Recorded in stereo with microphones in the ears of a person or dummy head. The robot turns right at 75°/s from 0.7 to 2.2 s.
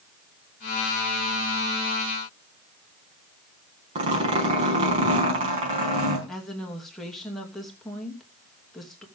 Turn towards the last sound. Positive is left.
turn(degrees=-5)  # may be behind; listen again after turning